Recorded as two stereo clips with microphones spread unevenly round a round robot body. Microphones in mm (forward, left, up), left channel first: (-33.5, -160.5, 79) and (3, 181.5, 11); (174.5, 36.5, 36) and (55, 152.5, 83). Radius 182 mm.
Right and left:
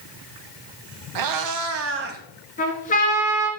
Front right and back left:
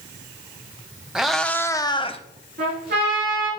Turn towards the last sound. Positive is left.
turn(degrees=-165)